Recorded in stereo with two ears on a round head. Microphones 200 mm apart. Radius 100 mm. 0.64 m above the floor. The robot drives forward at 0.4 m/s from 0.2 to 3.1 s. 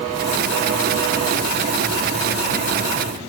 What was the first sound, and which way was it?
Only background noise.